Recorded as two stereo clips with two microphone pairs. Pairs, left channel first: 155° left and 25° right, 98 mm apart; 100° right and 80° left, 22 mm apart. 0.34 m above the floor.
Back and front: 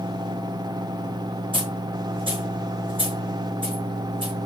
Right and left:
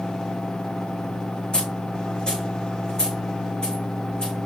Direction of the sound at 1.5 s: 55° right.